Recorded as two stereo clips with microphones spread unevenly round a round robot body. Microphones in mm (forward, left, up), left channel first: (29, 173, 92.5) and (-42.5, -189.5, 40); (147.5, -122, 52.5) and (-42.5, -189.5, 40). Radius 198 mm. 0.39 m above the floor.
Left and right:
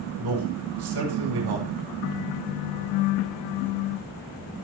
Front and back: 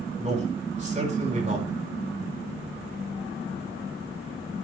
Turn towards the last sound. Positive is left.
turn(degrees=-105)